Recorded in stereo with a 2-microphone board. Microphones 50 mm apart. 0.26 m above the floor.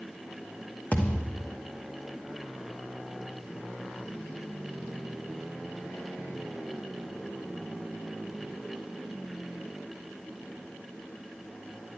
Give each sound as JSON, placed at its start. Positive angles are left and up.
{"t": 0.9, "sound": "a thud", "side_deg": 30, "distance_m": 1.3}